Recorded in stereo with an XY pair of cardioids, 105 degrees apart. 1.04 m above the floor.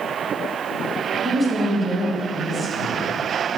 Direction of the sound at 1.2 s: 30° right.